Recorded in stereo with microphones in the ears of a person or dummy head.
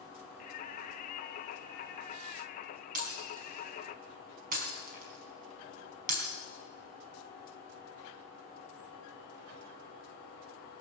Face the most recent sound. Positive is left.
turn(degrees=-45)  # may be behind; listen again after turning